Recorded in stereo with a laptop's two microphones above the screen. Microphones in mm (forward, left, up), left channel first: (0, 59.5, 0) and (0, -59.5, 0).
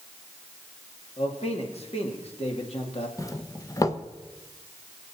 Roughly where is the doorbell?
Left.